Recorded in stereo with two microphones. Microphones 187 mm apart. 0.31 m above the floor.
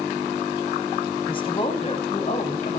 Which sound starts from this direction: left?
A woman speaking, at 1.3 s.